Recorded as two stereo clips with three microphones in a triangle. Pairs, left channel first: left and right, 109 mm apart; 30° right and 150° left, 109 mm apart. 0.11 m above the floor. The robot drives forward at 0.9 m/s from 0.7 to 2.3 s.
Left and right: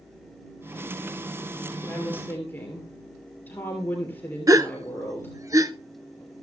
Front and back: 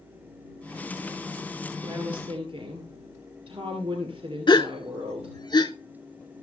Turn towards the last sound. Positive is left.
turn(degrees=-45)